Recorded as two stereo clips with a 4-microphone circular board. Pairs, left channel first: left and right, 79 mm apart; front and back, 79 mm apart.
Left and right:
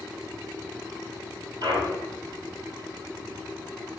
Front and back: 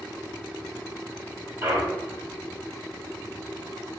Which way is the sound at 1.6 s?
120° right.